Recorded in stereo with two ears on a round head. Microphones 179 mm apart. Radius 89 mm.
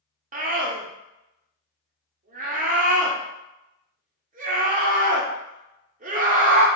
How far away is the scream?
About 0.8 m.